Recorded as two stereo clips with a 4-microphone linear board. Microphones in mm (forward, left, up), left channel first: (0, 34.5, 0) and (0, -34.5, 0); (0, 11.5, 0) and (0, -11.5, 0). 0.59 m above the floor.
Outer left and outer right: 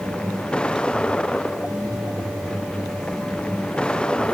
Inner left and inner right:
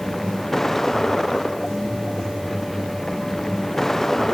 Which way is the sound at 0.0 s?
15° left (ahead or behind).